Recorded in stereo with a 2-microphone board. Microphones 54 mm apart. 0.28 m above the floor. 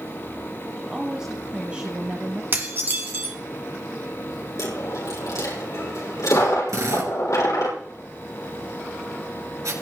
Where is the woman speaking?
10° right (ahead or behind), 1.9 m; by 2.4 s 30° right (ahead or behind), 1.2 m.